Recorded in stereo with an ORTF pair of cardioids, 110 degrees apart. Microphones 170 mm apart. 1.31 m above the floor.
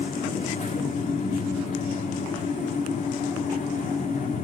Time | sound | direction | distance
0.0 | a fan | 50° left | 3 m